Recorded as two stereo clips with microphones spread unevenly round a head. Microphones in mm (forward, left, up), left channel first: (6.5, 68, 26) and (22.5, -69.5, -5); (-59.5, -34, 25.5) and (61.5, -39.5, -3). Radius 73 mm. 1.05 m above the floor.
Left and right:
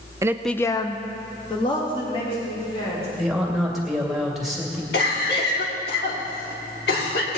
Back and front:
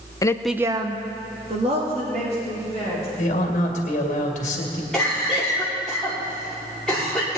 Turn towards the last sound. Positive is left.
turn(degrees=90)